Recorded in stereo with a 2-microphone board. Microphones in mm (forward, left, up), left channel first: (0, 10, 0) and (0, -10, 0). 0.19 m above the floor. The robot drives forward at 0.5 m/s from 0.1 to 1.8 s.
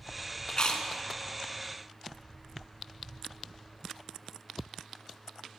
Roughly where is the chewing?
Left.